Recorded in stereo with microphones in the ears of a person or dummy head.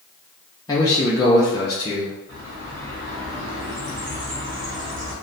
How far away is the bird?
About 1.4 m.